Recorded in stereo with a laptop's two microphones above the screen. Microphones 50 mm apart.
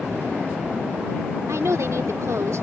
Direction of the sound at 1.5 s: 80° right.